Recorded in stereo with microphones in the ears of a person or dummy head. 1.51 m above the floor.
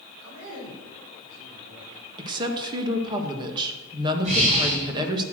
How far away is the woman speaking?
About 2 m.